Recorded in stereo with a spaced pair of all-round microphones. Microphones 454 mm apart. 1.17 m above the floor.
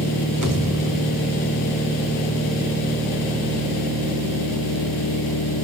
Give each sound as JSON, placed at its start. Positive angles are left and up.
{"t": 0.4, "sound": "a pop", "side_deg": -50, "distance_m": 1.7}